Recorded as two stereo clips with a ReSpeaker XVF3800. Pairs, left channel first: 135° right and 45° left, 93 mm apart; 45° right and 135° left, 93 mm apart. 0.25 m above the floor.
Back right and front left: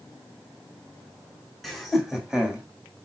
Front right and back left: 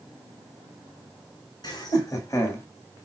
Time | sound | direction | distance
1.6 | laughter | 45° right | 2.0 m